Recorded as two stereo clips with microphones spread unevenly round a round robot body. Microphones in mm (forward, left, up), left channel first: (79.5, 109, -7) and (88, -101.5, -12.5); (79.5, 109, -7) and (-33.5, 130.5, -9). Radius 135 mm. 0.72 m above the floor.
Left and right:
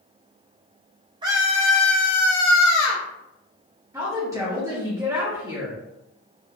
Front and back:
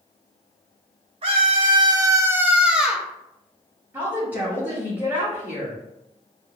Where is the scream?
155° right, 0.7 m; by 3.0 s 80° left, 1.1 m.